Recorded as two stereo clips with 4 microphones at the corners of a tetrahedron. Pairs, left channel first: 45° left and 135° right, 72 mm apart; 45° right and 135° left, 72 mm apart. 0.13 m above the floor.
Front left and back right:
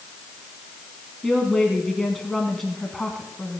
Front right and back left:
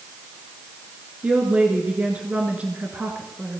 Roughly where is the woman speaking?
Behind left.